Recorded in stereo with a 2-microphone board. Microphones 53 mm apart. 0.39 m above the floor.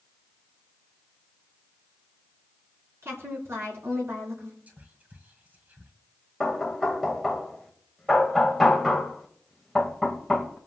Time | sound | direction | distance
3.0 | a woman speaking | 55° right (ahead or behind) | 4 m
4.7 | whispering | 30° right (ahead or behind) | 2.0 m
6.4 | knocking | centre (ahead or behind) | 1.7 m